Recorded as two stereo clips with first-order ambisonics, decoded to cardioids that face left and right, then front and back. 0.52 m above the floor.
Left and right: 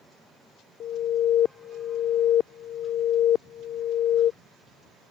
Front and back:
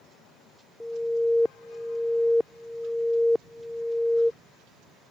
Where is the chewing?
No chewing in this recording.